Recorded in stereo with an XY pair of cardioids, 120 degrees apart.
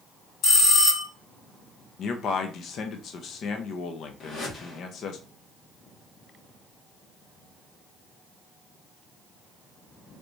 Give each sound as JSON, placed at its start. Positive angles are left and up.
{"t": 0.4, "sound": "a bell", "azimuth_deg": 55, "distance_m": 2.5}
{"t": 2.0, "sound": "a man speaking", "azimuth_deg": 55, "distance_m": 0.7}
{"t": 4.2, "sound": "a whoosh", "azimuth_deg": 55, "distance_m": 1.5}